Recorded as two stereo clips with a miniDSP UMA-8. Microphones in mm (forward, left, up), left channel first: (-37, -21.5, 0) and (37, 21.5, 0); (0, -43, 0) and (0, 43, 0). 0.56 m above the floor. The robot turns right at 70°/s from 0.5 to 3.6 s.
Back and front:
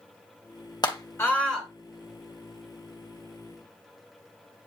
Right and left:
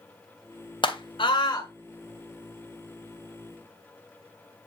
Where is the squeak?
I don't hear a squeak.